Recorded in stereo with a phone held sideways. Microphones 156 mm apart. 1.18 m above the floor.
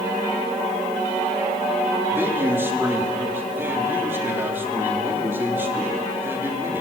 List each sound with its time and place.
2.1 s a man speaking: 15° right (ahead or behind), 3 m